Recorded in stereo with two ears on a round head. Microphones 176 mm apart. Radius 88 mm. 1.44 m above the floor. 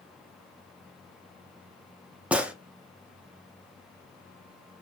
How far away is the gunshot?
About 0.6 m.